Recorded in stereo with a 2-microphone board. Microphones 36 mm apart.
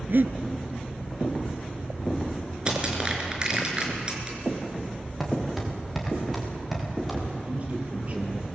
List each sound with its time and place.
0.1 s breathing: 65° right (ahead or behind), 1.2 m
2.7 s crushing: 25° right (ahead or behind), 4.5 m
5.2 s footsteps: centre (ahead or behind), 6 m; by 7.2 s 5° right (ahead or behind), 7.5 m
7.3 s a man speaking: 40° right (ahead or behind), 6.5 m